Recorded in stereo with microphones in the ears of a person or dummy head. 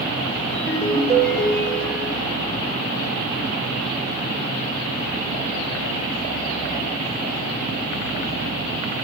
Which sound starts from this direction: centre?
A ringtone, at 0.5 s.